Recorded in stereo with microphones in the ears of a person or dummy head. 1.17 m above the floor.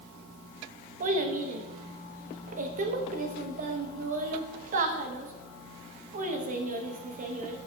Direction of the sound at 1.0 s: 45° right (ahead or behind).